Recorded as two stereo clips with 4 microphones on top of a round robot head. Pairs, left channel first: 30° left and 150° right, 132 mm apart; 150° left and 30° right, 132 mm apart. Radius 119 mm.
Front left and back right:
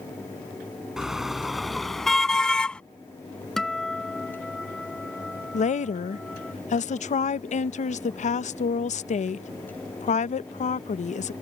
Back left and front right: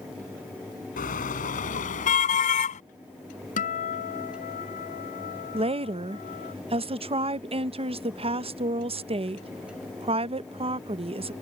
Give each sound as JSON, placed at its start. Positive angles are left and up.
{"t": 1.0, "sound": "a car horn", "azimuth_deg": 125}
{"t": 3.6, "sound": "a guitar", "azimuth_deg": 120}
{"t": 5.5, "sound": "a woman speaking", "azimuth_deg": 10}